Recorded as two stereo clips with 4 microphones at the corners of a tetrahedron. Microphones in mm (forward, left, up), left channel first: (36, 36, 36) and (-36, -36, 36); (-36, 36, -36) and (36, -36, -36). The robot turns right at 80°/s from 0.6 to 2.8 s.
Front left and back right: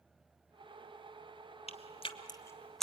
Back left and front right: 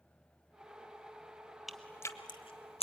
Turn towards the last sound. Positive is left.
turn(degrees=135)